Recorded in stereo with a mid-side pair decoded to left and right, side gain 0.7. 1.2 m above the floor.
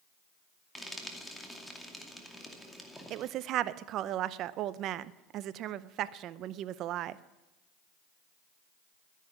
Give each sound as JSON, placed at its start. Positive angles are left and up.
{"t": 0.8, "sound": "frying", "azimuth_deg": 5, "distance_m": 2.5}
{"t": 3.1, "sound": "a woman speaking", "azimuth_deg": -50, "distance_m": 0.7}